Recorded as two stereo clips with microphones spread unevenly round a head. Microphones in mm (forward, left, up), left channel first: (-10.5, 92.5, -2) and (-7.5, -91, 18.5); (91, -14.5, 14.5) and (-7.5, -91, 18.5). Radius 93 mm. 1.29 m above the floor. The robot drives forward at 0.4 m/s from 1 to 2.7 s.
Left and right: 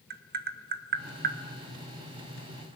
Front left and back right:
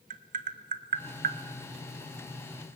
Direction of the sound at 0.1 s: 130° right.